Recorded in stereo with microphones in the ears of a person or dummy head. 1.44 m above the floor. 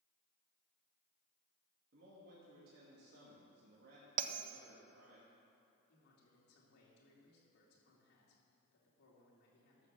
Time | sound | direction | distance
1.9 | a man speaking | 65° right (ahead or behind) | 2.5 m
4.2 | a bell | 50° right (ahead or behind) | 0.7 m
5.9 | a man speaking | 70° left (ahead or behind) | 3 m